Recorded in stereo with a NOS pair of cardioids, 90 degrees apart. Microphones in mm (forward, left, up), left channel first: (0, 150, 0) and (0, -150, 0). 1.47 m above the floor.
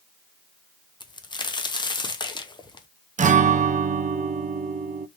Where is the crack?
15° left, 0.7 m.